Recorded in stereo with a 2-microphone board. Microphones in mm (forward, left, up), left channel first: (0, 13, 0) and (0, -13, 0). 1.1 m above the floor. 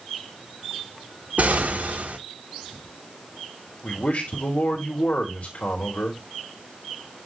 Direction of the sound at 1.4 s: 70° right (ahead or behind).